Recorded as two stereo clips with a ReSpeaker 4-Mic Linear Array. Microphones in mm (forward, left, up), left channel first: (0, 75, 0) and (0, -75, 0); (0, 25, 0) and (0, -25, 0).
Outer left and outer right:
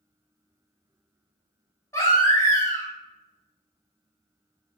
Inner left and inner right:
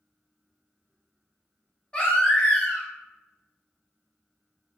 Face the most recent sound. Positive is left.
turn(degrees=20)  # may be behind; listen again after turning